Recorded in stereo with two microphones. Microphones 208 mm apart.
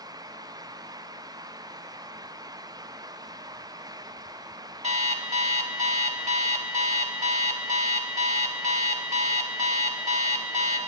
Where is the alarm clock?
35° right (ahead or behind), 0.5 m.